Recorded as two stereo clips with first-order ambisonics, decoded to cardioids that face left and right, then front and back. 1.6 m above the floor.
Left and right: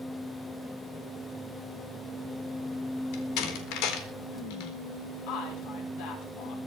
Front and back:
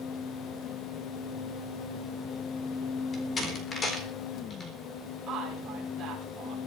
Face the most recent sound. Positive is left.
turn(degrees=115)